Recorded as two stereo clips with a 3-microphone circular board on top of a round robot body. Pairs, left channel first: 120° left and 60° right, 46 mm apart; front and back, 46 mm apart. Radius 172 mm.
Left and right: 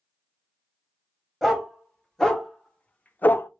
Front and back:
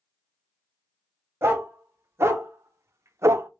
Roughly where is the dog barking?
Behind right.